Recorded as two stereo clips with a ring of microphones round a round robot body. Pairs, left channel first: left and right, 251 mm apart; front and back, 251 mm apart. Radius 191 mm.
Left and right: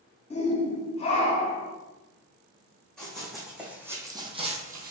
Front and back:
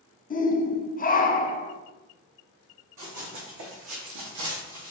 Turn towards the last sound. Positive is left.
turn(degrees=-140)